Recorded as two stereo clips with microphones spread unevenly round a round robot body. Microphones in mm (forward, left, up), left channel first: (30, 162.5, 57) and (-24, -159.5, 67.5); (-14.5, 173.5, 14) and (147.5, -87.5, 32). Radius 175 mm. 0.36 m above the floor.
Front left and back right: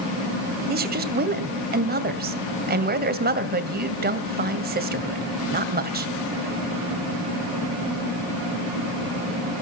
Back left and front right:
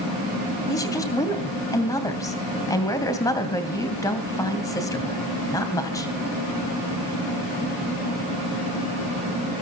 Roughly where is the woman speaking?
Behind.